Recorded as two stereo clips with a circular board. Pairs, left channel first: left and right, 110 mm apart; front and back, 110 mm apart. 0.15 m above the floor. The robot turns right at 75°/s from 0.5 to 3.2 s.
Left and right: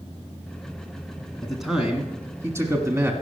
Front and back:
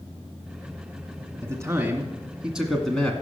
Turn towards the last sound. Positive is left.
turn(degrees=-55)